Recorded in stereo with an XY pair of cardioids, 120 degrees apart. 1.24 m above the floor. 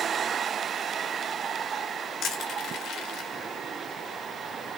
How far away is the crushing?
About 1.6 m.